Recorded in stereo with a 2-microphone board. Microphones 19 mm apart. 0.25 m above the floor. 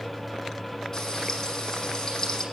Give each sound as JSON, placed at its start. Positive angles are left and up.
{"t": 0.9, "sound": "frying", "side_deg": 30, "distance_m": 9.5}